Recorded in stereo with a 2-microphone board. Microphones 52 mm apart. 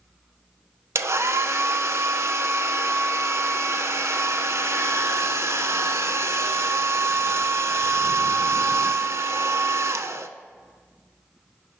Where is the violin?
No violin in this recording.